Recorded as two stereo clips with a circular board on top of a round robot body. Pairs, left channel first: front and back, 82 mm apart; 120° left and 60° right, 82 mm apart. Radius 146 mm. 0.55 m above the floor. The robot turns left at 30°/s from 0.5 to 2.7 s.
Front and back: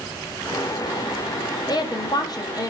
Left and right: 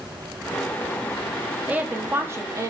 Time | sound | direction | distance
1.7 | a woman speaking | 10° left | 1.0 m